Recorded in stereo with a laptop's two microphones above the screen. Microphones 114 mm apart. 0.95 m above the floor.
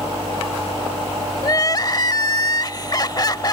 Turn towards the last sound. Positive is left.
turn(degrees=35)  # may be behind; listen again after turning